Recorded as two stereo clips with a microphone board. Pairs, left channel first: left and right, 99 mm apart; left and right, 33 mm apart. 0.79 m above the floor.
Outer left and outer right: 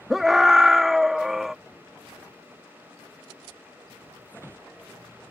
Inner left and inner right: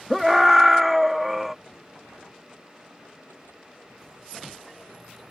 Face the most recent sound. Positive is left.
turn(degrees=-5)  # may be behind; listen again after turning